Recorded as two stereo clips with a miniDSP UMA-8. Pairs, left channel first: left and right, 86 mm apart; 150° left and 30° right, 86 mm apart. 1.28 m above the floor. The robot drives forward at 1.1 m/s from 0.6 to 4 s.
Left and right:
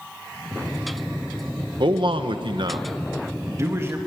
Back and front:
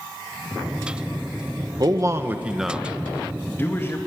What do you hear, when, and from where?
1.8 s a man speaking: 70° right, 1.2 m; by 4.0 s 150° right, 2.5 m